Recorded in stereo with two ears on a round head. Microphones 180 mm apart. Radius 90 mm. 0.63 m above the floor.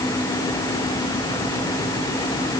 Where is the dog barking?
No dog barking in this recording.